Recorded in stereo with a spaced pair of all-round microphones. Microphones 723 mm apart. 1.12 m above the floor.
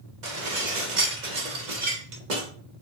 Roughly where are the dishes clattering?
Right.